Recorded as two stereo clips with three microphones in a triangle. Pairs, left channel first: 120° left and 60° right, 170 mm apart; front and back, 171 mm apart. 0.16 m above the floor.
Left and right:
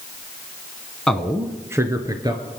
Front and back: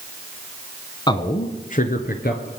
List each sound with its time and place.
1.1 s a man speaking: 35° left, 1.2 m; by 2.5 s 5° left, 2.5 m